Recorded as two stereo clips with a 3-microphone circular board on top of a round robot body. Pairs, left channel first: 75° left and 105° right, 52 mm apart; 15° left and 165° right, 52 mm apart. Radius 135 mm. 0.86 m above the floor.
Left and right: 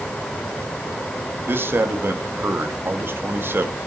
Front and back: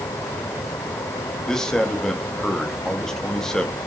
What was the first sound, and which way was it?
A man speaking, 65° right.